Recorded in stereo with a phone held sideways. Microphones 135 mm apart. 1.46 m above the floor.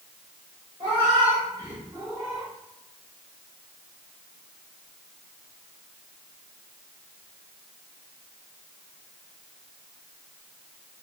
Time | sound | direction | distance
0.8 | a cat meowing | 40° right (ahead or behind) | 1.4 m